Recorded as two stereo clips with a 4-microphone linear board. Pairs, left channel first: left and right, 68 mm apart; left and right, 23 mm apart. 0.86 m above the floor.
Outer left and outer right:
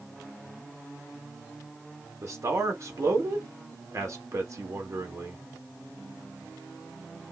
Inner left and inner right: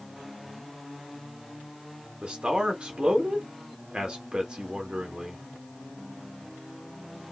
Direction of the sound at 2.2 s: 50° right (ahead or behind).